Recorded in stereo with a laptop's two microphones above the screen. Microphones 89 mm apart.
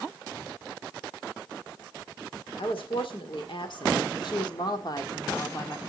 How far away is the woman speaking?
About 2.5 m.